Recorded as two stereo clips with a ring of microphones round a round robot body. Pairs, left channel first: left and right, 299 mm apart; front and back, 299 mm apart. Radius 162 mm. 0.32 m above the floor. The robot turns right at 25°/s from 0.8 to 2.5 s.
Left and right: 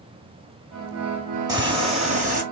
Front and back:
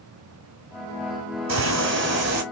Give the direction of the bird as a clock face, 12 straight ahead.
5 o'clock.